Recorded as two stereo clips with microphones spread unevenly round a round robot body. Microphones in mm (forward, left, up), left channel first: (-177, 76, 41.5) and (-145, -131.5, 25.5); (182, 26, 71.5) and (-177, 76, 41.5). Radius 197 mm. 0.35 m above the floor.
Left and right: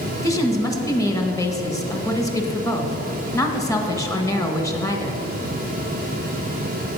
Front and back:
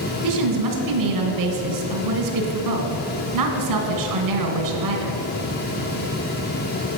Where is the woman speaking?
175° left, 1.5 m.